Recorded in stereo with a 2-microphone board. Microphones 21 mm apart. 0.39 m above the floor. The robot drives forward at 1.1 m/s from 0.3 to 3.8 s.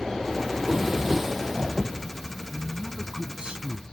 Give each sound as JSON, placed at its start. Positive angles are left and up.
{"t": 0.5, "sound": "a drawer", "side_deg": -20}
{"t": 2.5, "sound": "a man speaking", "side_deg": -40}